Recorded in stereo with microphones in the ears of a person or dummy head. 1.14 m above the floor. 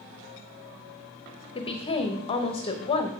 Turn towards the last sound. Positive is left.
turn(degrees=25)  # may be behind; listen again after turning